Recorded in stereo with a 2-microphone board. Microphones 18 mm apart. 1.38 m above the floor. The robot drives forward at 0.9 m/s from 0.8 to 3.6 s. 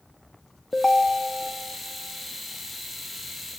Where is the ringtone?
40° left (ahead or behind), 1.1 m; by 1.5 s 30° left (ahead or behind), 1.5 m.